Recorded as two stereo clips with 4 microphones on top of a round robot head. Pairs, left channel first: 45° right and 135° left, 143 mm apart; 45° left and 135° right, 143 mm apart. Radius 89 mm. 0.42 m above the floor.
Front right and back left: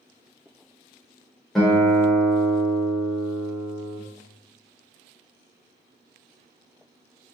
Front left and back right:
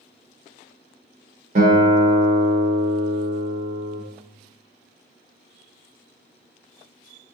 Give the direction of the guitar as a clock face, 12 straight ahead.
4 o'clock.